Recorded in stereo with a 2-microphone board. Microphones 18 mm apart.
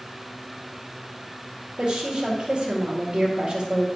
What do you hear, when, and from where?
1.8 s a woman speaking: 45° right (ahead or behind), 2.5 m